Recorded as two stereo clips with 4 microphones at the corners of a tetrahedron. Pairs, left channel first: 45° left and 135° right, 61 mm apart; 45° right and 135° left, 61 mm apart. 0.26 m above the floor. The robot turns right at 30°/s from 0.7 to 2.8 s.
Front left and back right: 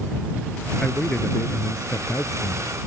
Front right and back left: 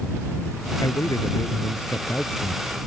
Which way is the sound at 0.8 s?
25° right.